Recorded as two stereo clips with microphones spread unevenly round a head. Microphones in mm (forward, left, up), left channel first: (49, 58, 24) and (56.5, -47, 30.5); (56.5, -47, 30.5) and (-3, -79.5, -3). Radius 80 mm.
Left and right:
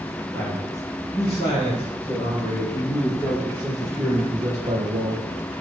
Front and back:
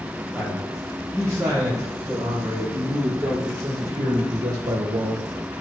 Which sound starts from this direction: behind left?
A man speaking, at 0.3 s.